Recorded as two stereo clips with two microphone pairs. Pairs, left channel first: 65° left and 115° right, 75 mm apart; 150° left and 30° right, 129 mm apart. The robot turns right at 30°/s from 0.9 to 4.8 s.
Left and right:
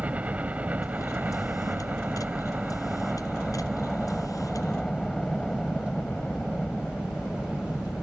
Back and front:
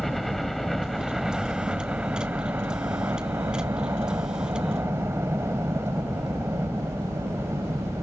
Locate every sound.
0.0 s a helicopter: 120° right; by 8.0 s 5° right